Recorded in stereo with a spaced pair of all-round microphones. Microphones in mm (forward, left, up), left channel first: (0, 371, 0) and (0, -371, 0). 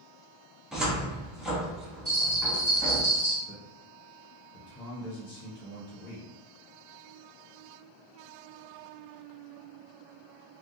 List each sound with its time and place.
0.7 s a cupboard door: centre (ahead or behind), 0.6 m
2.0 s a bell: 25° right (ahead or behind), 1.3 m
3.5 s a man speaking: 65° left (ahead or behind), 1.2 m